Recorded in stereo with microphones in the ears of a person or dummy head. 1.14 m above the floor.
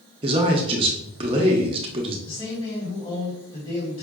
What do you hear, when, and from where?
0.2 s a man speaking: 25° right (ahead or behind), 0.6 m
2.3 s a man speaking: 35° left (ahead or behind), 1.5 m